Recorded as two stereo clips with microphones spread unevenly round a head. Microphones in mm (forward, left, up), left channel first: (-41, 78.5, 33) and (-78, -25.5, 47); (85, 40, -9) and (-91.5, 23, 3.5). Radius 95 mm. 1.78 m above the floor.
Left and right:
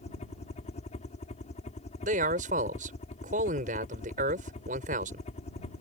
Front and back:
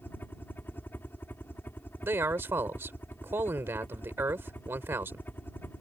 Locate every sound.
0.0 s a helicopter: 85° left
2.0 s a man speaking: 95° right